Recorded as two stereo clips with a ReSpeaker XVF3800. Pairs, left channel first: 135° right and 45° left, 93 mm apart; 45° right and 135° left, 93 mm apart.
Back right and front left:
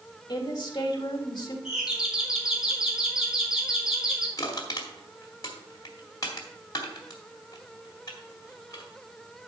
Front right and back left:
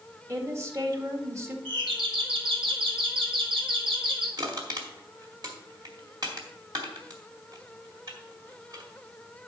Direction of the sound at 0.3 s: 170° right.